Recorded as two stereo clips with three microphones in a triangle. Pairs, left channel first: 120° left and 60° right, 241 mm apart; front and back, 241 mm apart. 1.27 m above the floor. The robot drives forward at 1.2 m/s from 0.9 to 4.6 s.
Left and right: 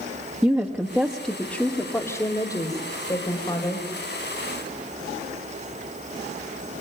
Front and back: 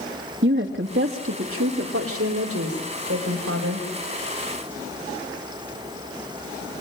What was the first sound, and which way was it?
A woman speaking, 145° right.